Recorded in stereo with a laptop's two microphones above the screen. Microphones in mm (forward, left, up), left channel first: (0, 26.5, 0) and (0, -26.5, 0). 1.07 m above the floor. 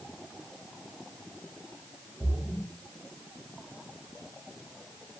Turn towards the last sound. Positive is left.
turn(degrees=-45)  # may be behind; listen again after turning